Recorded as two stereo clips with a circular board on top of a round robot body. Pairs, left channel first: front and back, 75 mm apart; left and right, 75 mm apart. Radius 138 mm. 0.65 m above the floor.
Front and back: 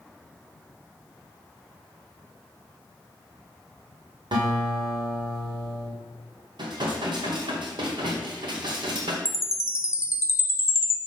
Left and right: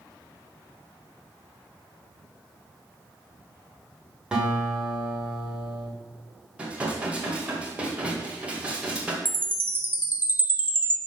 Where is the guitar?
170° right, 2.5 m.